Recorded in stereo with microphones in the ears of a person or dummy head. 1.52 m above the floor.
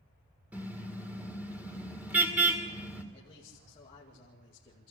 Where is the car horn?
5° right (ahead or behind), 2.5 m.